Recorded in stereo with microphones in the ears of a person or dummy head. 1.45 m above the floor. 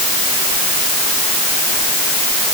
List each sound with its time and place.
Only background noise.